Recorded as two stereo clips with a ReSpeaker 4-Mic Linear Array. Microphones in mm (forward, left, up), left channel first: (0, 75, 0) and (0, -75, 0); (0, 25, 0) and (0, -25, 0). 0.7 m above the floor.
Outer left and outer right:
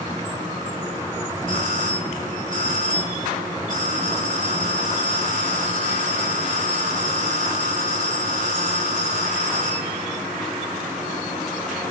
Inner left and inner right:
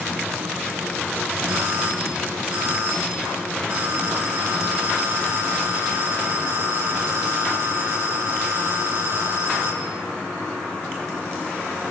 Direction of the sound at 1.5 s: 65° right (ahead or behind).